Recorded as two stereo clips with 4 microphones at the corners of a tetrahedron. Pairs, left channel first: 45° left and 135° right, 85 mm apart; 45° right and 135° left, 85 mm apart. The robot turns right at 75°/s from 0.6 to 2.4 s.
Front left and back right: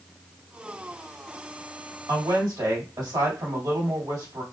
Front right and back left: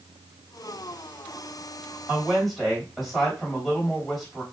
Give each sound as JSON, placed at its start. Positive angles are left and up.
{"t": 2.1, "sound": "a woman speaking", "azimuth_deg": -160, "distance_m": 1.7}